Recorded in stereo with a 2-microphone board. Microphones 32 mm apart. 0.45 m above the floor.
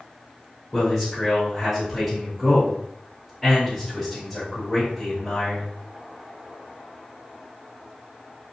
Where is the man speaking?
10° left (ahead or behind), 2.0 m.